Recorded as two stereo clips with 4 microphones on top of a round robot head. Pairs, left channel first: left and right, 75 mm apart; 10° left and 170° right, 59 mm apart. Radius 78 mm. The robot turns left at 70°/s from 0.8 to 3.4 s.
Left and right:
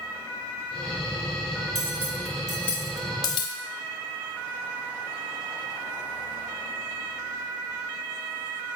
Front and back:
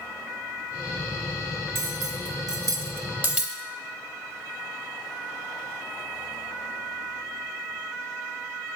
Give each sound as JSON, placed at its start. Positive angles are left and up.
{"t": 1.8, "sound": "cutlery clinking", "azimuth_deg": -130, "distance_m": 1.0}